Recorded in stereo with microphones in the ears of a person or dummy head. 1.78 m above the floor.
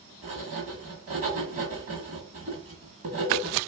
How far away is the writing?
About 1.7 m.